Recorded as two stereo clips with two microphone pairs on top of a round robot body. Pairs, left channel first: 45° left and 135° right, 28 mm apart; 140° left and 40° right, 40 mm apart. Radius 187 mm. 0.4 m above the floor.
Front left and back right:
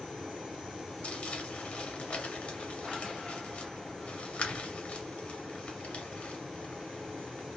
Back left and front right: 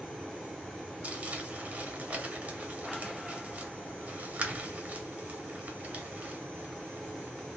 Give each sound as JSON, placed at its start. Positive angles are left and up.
{"t": 1.0, "sound": "crumpling", "azimuth_deg": 15, "distance_m": 1.2}